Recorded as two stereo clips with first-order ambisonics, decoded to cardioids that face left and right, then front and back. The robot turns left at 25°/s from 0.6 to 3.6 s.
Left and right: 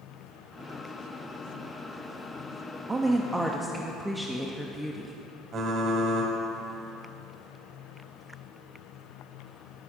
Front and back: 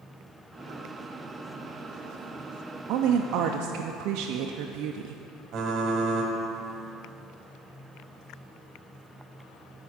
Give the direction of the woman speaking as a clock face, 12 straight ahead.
5 o'clock.